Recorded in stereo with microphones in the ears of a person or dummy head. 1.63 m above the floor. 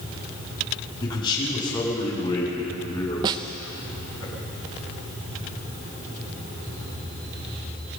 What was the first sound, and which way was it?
A man speaking, 30° left (ahead or behind).